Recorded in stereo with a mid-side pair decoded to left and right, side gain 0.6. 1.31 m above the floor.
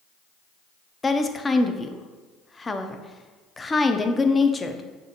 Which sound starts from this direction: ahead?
A woman speaking, at 1.0 s.